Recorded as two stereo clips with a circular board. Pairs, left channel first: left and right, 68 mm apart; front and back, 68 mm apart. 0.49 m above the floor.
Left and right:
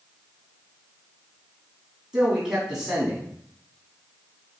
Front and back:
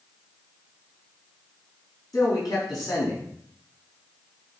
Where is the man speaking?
10° right, 3.5 m.